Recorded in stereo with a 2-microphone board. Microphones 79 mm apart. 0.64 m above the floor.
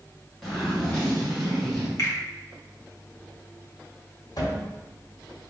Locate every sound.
0.4 s a zipper: 5° left (ahead or behind), 1.2 m
2.0 s a finger snap: 40° left (ahead or behind), 1.0 m
4.4 s a cupboard door: 55° left (ahead or behind), 1.0 m